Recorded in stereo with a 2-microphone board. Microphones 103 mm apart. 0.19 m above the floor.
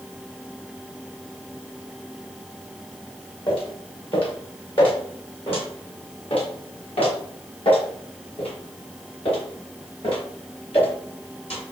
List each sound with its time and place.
3.5 s footsteps: 60° left (ahead or behind), 6.5 m; by 11.6 s 75° left (ahead or behind), 10 m